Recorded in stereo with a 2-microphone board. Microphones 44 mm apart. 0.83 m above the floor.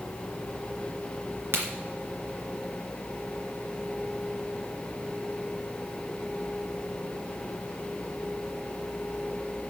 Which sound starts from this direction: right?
A crack, at 1.5 s.